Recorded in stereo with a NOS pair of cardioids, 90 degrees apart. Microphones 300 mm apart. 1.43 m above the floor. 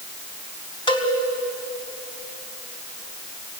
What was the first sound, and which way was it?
A cowbell, 15° left.